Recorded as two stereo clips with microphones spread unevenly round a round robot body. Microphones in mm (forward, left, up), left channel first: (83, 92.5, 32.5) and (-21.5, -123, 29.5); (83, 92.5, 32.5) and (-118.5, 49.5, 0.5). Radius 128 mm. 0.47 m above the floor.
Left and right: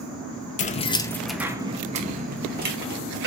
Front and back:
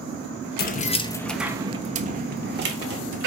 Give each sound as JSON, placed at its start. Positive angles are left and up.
{"t": 0.6, "sound": "keys jangling", "azimuth_deg": 30, "distance_m": 0.6}